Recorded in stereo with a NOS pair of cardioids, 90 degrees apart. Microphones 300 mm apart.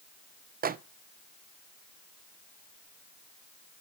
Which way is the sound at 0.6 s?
30° right.